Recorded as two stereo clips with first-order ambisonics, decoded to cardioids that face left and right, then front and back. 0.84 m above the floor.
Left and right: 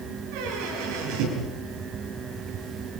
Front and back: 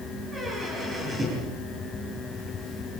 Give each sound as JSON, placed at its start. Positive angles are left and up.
{"t": 0.3, "sound": "a squeak", "azimuth_deg": -100, "distance_m": 10.0}